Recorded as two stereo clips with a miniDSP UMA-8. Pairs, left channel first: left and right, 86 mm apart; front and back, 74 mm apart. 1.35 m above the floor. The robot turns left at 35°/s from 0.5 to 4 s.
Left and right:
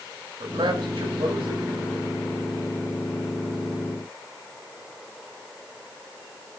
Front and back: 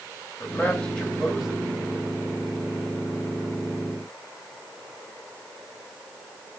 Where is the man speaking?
70° right, 9.5 m; by 2.1 s 125° right, 9.5 m.